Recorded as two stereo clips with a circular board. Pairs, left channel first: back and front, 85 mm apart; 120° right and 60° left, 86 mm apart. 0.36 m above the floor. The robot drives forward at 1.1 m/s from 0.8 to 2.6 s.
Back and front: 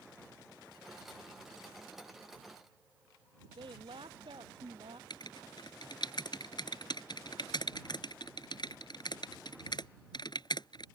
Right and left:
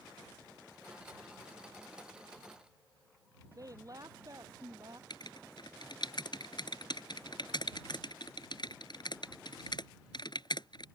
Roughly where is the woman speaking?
Ahead.